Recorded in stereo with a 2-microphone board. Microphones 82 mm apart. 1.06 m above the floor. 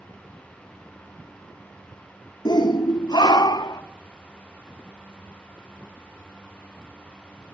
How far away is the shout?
About 1.0 m.